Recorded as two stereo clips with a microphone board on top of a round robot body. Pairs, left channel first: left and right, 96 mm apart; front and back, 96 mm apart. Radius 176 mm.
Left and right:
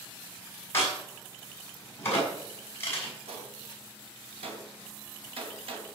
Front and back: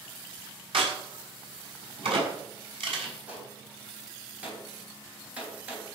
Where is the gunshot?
105° right, 3.5 m.